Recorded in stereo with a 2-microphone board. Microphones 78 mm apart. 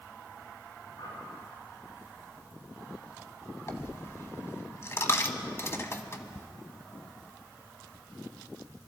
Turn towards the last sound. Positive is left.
turn(degrees=35)  # may be behind; listen again after turning